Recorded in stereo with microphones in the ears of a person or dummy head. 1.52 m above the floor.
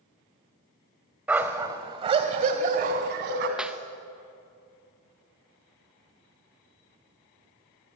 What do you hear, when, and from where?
1.3 s a dog barking: 10° right (ahead or behind), 1.8 m; by 3.5 s 65° right (ahead or behind), 3 m
3.6 s a clap: 5° right (ahead or behind), 1.0 m